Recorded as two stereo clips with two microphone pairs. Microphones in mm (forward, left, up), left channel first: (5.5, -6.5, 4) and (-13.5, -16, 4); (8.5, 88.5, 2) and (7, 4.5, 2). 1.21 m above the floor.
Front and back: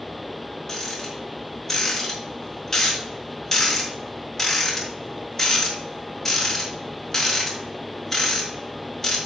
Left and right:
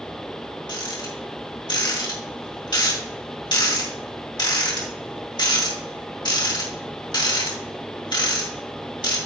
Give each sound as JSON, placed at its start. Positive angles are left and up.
{"t": 0.7, "sound": "a rattle", "azimuth_deg": 105, "distance_m": 3.0}